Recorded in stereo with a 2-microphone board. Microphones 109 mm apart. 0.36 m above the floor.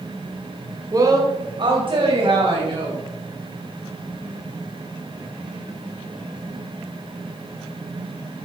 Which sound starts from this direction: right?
A woman speaking, at 0.9 s.